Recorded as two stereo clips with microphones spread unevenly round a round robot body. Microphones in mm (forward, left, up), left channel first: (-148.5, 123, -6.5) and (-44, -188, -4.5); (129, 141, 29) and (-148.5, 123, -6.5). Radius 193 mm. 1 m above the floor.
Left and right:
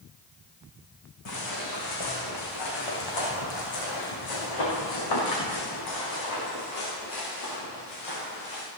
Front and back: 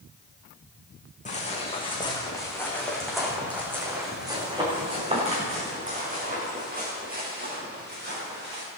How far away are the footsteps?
About 4.5 m.